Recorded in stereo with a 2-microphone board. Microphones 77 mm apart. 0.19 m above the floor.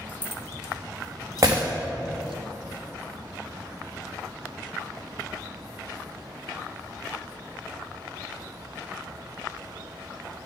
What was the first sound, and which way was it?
Keys jangling, 25° left (ahead or behind).